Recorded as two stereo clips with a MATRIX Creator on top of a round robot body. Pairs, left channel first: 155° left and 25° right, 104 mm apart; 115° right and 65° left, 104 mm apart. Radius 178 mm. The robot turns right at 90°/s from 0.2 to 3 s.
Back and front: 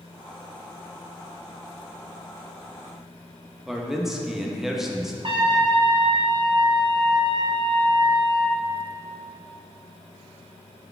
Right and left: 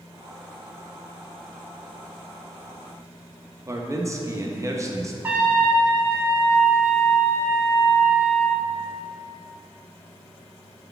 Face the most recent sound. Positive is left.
turn(degrees=0)